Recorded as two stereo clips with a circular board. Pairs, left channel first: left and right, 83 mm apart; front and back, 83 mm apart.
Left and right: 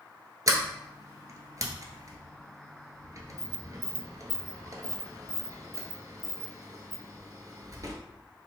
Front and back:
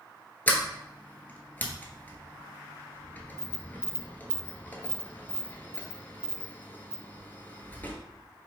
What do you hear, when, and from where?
0.5 s a sliding door: 60° right, 0.7 m